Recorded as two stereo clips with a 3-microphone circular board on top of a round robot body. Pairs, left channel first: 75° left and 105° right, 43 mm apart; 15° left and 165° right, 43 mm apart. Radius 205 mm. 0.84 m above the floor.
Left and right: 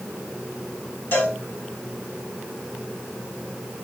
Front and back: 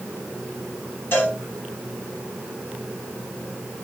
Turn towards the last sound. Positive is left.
turn(degrees=45)